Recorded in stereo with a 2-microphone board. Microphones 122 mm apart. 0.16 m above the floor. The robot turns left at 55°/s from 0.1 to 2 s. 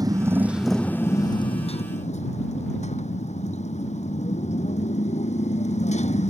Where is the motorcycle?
150° right; by 6.3 s 105° left.